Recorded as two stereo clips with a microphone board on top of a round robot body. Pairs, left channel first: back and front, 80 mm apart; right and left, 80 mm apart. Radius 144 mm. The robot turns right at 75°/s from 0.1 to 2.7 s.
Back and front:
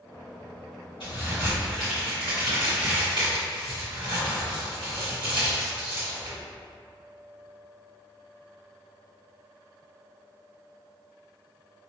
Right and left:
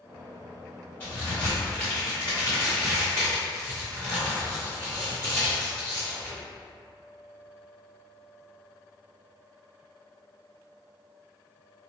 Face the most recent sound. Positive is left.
turn(degrees=-25)